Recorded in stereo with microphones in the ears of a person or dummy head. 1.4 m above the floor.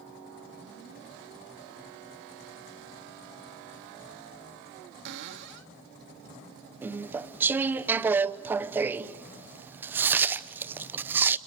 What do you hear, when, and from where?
5.0 s a cupboard door: 55° right (ahead or behind), 1.3 m
6.8 s chewing: 10° right (ahead or behind), 0.8 m